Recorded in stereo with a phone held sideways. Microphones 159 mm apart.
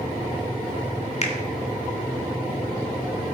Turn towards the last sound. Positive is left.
turn(degrees=45)  # may be behind; listen again after turning